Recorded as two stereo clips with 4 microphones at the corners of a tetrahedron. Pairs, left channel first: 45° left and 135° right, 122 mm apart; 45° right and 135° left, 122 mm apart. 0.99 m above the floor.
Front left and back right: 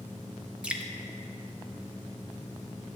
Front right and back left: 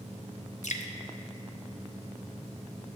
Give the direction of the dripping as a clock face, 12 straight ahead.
2 o'clock.